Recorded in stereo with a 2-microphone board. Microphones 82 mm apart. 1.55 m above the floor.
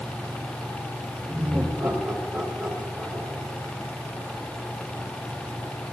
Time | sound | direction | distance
1.3 | laughter | 30° right (ahead or behind) | 4.5 m